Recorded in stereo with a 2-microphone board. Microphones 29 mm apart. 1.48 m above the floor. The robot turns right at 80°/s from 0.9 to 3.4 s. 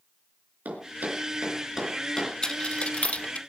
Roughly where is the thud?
Right.